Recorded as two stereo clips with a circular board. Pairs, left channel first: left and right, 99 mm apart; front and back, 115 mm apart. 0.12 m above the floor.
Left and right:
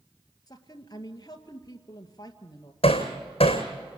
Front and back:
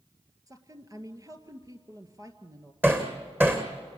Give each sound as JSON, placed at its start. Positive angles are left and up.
{"t": 0.5, "sound": "a woman speaking", "azimuth_deg": 130, "distance_m": 2.0}
{"t": 2.8, "sound": "hammering", "azimuth_deg": 110, "distance_m": 3.0}